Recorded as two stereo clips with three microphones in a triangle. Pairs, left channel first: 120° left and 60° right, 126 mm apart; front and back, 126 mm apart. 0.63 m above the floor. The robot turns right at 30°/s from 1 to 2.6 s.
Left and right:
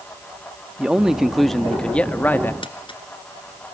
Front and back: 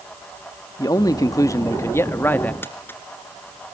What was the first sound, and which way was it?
A man speaking, 20° left.